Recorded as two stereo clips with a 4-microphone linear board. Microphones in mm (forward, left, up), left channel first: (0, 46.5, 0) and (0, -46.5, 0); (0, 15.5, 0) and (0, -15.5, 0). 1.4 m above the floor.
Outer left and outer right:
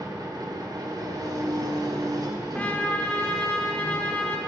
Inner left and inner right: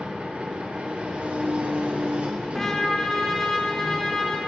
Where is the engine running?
45° right (ahead or behind), 1.1 m.